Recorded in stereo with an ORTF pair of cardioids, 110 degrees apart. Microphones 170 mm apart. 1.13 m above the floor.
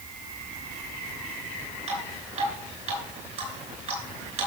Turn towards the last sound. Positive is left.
turn(degrees=-45)